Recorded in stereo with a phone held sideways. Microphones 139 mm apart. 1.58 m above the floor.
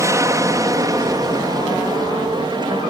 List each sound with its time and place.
0.0 s an aircraft: 20° right (ahead or behind); by 2.9 s 35° right (ahead or behind)